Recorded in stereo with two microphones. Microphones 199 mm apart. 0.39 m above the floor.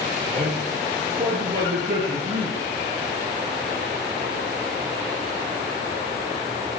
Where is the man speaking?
45° right (ahead or behind), 9.5 m; by 2.7 s 35° right (ahead or behind), 7.5 m.